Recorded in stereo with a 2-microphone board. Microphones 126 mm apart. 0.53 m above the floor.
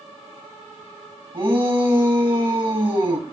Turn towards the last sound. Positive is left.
turn(degrees=-40)  # may be behind; listen again after turning